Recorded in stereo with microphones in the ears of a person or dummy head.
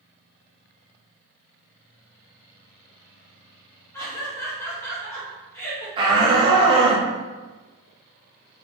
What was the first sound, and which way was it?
Laughter, 15° left (ahead or behind).